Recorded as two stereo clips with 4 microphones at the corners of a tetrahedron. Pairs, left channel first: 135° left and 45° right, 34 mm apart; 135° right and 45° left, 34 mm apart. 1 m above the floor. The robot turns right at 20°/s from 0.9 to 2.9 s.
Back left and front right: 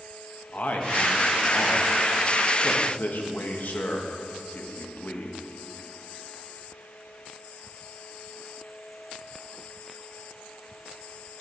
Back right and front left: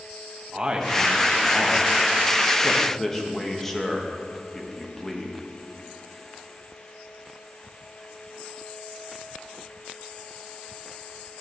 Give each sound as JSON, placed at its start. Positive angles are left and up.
{"t": 0.5, "sound": "a man speaking", "azimuth_deg": 110, "distance_m": 1.2}